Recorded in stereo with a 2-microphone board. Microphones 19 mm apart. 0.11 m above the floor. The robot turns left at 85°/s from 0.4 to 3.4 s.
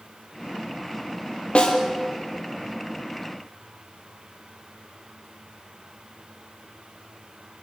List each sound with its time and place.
1.6 s a snare drum: 60° left (ahead or behind), 3.5 m; by 1.8 s 45° left (ahead or behind), 3.5 m